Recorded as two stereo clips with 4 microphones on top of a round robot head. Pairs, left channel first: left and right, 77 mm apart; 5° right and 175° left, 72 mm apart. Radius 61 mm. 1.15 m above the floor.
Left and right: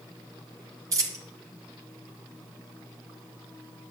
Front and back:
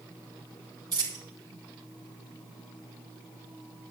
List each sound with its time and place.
0.9 s a dropped coin: 130° right, 2 m